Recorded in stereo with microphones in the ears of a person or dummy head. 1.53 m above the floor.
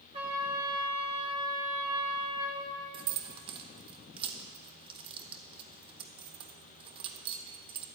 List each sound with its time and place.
0.1 s a trumpet: 25° right (ahead or behind), 2 m
2.9 s keys jangling: 25° right (ahead or behind), 1.0 m